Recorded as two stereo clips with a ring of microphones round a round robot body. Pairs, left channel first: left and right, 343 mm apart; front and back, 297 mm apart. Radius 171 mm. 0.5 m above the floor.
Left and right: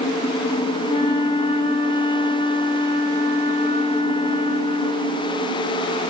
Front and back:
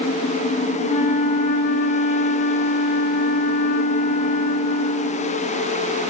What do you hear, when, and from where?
0.8 s a flute: 20° left, 0.9 m